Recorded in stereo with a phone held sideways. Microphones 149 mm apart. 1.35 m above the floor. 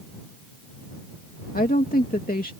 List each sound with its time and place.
1.5 s a woman speaking: 75° left (ahead or behind)